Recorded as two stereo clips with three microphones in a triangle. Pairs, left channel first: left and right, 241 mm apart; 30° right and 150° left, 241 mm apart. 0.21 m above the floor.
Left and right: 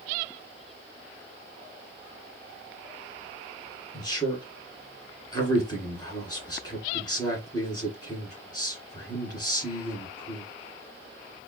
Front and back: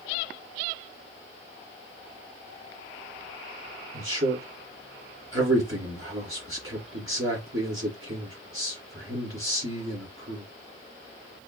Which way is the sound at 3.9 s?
160° left.